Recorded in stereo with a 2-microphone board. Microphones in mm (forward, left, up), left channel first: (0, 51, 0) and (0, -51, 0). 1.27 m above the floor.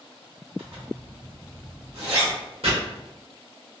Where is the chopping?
80° right, 1.7 m.